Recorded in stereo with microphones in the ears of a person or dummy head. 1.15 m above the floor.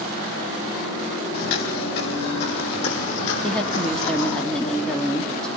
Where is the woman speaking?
5° left (ahead or behind), 1.9 m.